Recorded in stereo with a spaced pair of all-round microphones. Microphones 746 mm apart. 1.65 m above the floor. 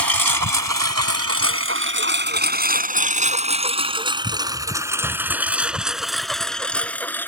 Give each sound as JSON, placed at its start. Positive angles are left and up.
{"t": 0.0, "sound": "a lawn mower", "side_deg": -25}